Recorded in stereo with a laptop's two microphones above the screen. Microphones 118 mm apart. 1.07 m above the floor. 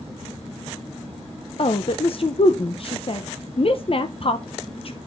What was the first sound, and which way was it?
A woman speaking, 50° left (ahead or behind).